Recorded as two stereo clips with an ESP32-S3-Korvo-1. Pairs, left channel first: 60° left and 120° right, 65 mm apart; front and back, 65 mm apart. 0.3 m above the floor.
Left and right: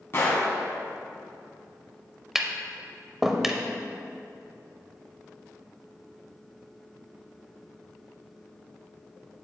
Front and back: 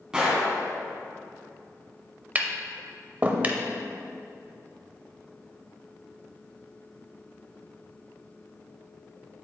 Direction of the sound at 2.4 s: 160° left.